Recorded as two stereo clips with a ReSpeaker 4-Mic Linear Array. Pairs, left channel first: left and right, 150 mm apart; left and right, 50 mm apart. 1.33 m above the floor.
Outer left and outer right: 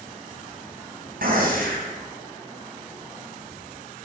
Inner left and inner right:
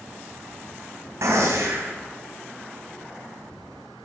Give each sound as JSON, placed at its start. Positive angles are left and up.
{"t": 1.2, "sound": "a gunshot", "side_deg": -75, "distance_m": 4.0}